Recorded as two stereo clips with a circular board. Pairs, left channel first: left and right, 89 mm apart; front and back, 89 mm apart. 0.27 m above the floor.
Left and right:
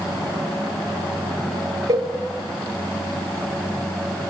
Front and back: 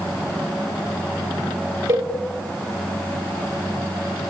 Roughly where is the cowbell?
Behind right.